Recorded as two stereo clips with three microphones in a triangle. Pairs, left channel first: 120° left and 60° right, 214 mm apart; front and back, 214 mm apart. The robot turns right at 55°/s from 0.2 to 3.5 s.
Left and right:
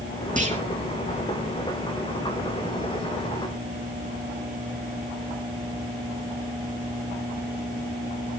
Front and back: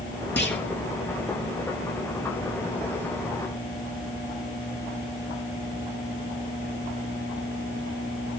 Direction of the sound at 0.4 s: 15° right.